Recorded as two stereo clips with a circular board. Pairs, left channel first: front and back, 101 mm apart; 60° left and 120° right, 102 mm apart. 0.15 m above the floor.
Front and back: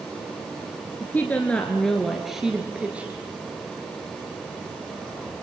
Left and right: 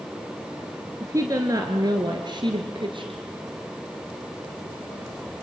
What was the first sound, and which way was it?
A woman speaking, 65° right.